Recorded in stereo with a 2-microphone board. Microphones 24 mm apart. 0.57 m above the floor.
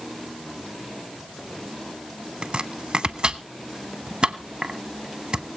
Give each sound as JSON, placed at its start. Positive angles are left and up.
{"t": 2.4, "sound": "chopping", "side_deg": -40, "distance_m": 0.9}